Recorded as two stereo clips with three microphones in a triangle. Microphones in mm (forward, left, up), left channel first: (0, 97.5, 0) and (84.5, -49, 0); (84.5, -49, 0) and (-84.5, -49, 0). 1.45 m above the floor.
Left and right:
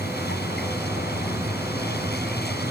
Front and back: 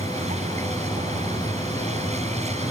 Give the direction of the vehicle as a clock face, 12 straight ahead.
8 o'clock.